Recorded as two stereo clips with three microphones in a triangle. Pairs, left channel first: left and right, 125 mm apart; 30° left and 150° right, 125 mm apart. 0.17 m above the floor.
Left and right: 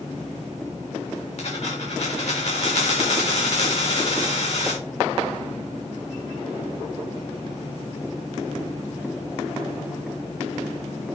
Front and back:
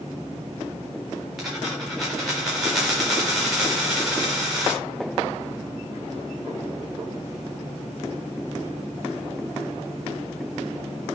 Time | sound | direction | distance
1.4 | a dropped coin | 125° left | 4 m